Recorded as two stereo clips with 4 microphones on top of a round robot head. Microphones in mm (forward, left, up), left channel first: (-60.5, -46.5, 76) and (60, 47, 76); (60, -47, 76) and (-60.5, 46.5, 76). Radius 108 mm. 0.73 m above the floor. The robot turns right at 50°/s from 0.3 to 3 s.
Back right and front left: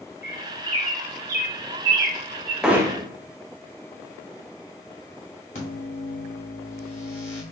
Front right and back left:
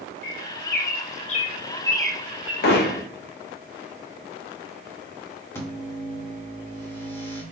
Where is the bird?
45° right, 0.6 m; by 2.5 s 70° left, 0.6 m.